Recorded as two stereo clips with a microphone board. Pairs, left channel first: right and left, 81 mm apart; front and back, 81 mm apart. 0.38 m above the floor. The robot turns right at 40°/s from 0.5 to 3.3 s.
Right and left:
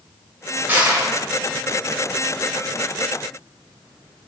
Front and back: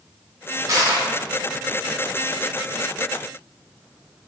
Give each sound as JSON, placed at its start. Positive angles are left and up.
{"t": 0.7, "sound": "crushing", "azimuth_deg": 150, "distance_m": 0.8}